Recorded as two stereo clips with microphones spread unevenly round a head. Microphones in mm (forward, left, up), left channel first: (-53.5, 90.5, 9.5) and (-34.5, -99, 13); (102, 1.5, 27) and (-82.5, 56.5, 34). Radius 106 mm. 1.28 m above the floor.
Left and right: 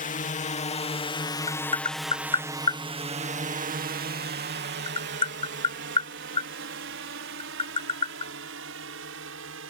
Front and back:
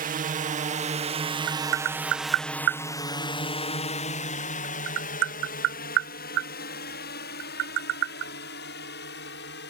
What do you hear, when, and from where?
0.0 s a drone: 130° left; by 9.7 s 55° right
1.5 s tapping: 155° left